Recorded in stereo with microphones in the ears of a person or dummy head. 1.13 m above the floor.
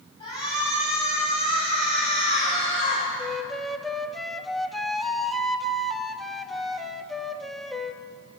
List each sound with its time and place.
0.2 s a shout: 30° left (ahead or behind), 10 m; by 3.0 s 50° left (ahead or behind), 11.5 m
3.2 s a flute: 5° left (ahead or behind), 1.1 m